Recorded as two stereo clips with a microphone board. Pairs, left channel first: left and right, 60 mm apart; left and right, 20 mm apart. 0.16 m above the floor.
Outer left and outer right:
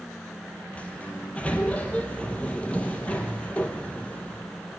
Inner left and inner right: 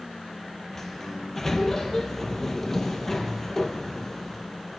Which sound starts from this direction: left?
A sliding door, at 0.8 s.